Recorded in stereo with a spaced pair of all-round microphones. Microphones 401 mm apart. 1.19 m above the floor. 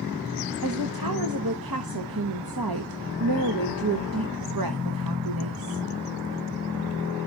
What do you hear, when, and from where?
0.6 s a woman speaking: 60° right (ahead or behind), 0.9 m